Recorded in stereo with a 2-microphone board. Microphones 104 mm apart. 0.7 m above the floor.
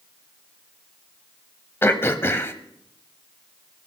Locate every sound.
1.8 s throat clearing: 25° left (ahead or behind), 0.9 m